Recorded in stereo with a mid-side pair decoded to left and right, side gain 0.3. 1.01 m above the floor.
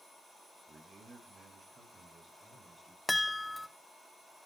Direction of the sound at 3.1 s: 20° left.